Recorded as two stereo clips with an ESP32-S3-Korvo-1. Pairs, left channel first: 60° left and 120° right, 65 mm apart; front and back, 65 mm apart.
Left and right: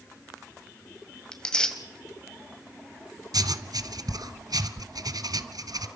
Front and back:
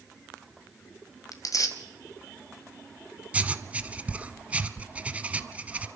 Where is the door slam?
I don't hear a door slam.